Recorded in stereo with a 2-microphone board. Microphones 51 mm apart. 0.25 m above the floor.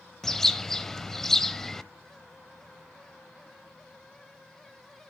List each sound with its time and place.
0.2 s a bird: 10° left (ahead or behind), 0.5 m